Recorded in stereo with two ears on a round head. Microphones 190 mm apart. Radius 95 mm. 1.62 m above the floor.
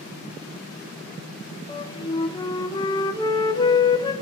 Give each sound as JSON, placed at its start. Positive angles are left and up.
{"t": 1.7, "sound": "a flute", "side_deg": 20, "distance_m": 0.5}